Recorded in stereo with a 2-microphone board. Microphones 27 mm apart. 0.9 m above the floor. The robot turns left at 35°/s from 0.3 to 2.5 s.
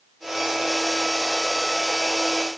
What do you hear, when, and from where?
Only background noise.